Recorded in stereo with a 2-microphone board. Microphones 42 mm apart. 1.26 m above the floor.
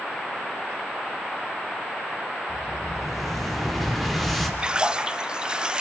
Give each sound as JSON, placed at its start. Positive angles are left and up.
{"t": 2.5, "sound": "an explosion", "side_deg": 5, "distance_m": 3.5}
{"t": 4.6, "sound": "a splash", "side_deg": -20, "distance_m": 0.5}